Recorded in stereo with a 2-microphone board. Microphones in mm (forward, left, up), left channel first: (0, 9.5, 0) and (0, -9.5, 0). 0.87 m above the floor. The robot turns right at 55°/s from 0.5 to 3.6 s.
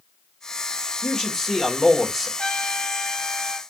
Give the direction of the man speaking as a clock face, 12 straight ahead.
8 o'clock.